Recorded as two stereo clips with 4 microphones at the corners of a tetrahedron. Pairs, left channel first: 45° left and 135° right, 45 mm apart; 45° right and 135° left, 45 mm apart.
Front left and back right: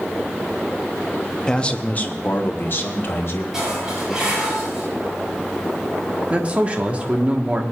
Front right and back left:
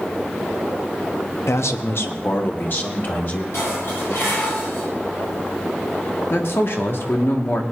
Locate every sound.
1.5 s a man speaking: 30° right, 0.7 m; by 3.4 s 5° left, 1.9 m
3.5 s dishes clattering: 60° right, 6 m
6.3 s a man speaking: 75° right, 1.4 m